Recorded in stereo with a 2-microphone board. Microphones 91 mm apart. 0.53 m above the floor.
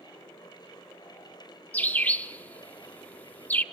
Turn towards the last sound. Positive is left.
turn(degrees=15)  # may be behind; listen again after turning